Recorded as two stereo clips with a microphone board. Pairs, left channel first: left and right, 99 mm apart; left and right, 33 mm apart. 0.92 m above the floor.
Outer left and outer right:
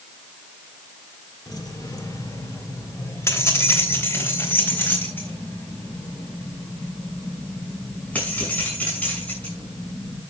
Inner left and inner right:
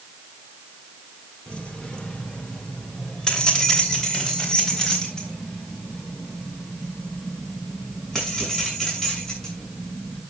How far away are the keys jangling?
About 1.8 m.